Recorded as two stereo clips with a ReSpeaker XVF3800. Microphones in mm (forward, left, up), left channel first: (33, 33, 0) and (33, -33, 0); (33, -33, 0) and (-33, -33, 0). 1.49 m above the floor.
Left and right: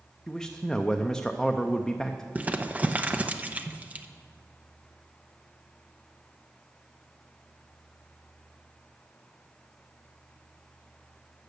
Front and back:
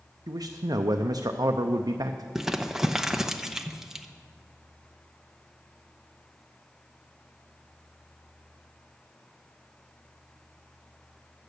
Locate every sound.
0.3 s a man speaking: 175° left, 0.5 m
2.4 s crumpling: 110° right, 0.6 m